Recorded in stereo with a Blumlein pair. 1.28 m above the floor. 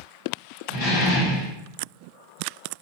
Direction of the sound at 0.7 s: 60° left.